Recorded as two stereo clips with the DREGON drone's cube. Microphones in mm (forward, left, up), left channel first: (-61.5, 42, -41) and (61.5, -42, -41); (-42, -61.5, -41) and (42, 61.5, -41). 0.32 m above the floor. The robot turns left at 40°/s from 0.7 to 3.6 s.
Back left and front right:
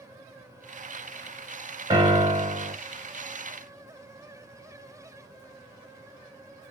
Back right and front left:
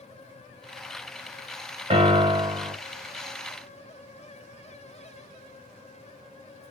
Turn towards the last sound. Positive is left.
turn(degrees=-50)